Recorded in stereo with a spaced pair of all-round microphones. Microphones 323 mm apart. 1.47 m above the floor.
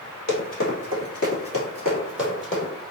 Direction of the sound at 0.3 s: 55° left (ahead or behind).